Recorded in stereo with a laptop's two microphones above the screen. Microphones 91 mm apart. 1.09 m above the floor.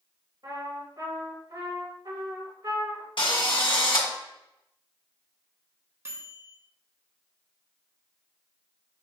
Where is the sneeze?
No sneeze in this recording.